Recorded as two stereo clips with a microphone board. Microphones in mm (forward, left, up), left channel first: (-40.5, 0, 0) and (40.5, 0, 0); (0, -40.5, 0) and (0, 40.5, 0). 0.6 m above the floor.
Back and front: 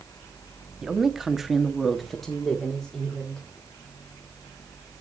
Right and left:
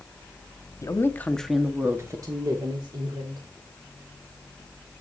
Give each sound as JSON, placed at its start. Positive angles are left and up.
{"t": 0.8, "sound": "a woman speaking", "azimuth_deg": -80, "distance_m": 1.0}